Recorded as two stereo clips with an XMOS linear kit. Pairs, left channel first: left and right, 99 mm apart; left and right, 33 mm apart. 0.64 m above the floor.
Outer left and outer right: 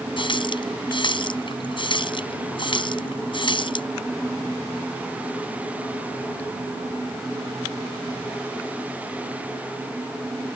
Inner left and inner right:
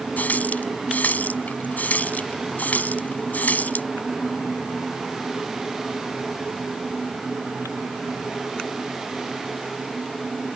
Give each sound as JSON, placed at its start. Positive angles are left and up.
{"t": 0.2, "sound": "a running tap", "side_deg": 55}